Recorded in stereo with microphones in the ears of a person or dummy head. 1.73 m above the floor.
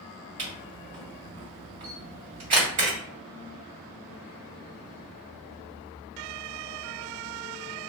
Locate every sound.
0.4 s a camera shutter: 35° right (ahead or behind), 1.8 m